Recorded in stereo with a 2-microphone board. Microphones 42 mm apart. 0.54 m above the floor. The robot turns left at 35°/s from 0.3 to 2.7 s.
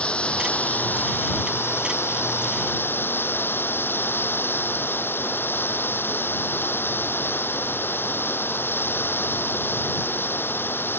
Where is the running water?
150° left; by 11.0 s 65° left.